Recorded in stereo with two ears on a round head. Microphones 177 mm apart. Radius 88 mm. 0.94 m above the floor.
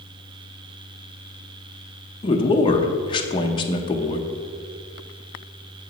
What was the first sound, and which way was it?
A man speaking, 25° left (ahead or behind).